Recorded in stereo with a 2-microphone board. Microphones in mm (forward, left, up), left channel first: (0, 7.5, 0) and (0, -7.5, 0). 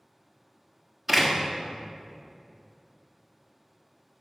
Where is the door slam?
20° right (ahead or behind), 1.4 m.